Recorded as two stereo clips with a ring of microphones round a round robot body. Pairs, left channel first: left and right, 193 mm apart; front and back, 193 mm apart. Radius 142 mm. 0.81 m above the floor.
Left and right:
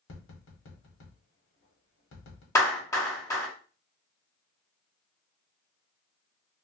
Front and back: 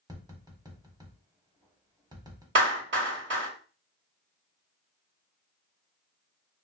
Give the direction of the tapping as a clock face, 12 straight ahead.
8 o'clock.